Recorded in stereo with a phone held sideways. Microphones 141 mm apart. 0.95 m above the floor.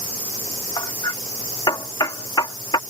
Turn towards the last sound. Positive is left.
turn(degrees=30)  # may be behind; listen again after turning